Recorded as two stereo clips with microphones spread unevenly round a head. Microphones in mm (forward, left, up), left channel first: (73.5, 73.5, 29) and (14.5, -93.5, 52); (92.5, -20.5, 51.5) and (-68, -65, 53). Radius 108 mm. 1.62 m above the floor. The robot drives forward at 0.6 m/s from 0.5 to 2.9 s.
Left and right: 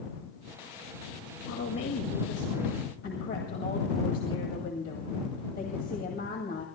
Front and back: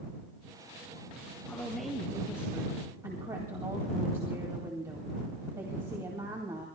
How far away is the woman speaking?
About 1.9 m.